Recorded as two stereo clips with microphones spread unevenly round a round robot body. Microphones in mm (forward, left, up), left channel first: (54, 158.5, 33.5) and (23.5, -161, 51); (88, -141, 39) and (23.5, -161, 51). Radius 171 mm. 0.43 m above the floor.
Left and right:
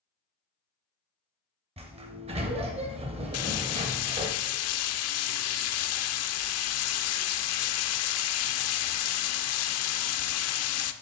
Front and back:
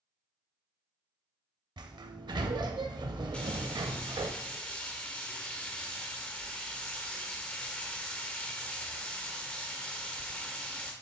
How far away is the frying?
About 0.7 m.